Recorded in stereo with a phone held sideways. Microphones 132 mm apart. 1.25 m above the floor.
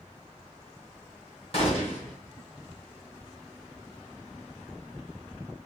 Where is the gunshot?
45° left (ahead or behind), 1.5 m.